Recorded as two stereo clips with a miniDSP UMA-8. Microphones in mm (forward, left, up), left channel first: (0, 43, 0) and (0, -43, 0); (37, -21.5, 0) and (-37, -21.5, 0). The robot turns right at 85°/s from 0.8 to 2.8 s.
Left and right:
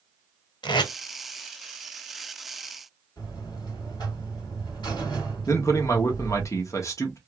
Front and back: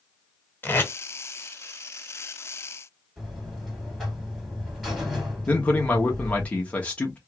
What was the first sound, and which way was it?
Tape being pulled, 65° left.